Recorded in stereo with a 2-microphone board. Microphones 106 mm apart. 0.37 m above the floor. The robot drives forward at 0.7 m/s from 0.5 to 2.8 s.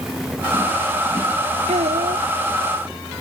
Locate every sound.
1.7 s a child speaking: 85° right; by 2.3 s 80° right